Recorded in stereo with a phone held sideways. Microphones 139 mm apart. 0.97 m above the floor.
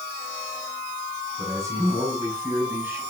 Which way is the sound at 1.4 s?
20° right (ahead or behind).